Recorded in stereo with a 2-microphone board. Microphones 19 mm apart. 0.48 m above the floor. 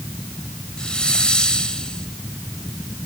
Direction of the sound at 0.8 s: 40° left (ahead or behind).